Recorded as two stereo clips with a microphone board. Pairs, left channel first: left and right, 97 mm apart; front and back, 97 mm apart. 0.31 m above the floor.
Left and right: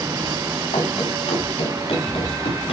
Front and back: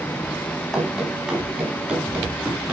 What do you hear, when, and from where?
0.7 s running footsteps: 100° left, 5.5 m; by 2.7 s 105° left, 7 m